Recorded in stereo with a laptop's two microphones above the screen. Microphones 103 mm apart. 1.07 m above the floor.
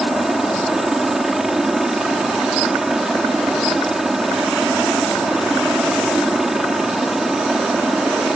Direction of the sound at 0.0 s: 5° right (ahead or behind).